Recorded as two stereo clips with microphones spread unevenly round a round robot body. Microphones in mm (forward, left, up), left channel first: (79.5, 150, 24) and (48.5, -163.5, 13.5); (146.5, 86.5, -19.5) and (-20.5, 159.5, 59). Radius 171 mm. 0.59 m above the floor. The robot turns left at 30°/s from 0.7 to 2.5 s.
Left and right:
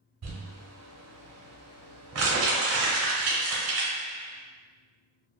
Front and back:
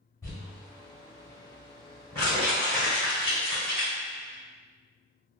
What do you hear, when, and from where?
0.2 s crumpling: 75° right, 0.8 m; by 3.9 s 130° right, 0.8 m